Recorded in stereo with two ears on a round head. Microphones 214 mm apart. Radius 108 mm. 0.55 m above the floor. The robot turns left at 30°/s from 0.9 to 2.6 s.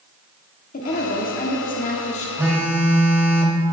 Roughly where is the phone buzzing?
Centre.